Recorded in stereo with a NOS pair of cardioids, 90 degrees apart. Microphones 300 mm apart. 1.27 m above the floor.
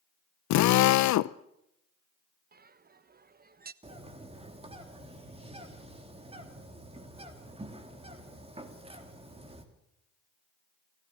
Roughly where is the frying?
No frying in this recording.